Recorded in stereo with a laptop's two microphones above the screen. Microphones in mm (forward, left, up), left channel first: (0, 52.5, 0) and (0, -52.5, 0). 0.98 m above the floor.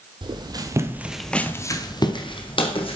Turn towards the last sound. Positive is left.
turn(degrees=65)  # may be behind; listen again after turning